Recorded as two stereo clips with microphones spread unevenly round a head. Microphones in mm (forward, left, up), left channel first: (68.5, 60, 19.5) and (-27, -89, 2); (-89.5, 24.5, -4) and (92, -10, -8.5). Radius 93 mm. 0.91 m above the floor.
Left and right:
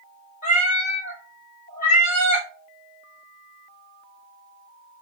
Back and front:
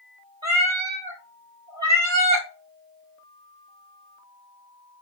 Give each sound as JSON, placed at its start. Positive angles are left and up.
{"t": 0.4, "sound": "a cat meowing", "azimuth_deg": 35, "distance_m": 1.2}